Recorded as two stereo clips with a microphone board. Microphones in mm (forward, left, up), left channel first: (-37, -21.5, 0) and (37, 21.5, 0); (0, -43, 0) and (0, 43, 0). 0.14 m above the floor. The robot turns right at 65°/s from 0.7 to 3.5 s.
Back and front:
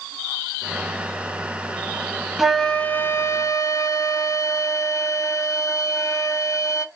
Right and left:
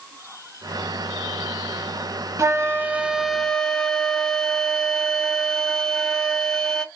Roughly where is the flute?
Behind left.